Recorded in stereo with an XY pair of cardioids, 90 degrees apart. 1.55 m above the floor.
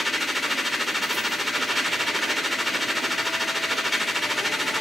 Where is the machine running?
10° left, 3 m.